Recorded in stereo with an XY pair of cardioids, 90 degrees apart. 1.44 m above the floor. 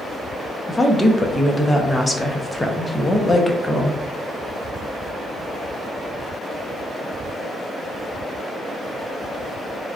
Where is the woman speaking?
15° left, 0.7 m.